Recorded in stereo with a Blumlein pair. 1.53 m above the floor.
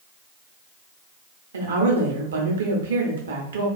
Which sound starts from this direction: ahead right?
A woman speaking, at 1.5 s.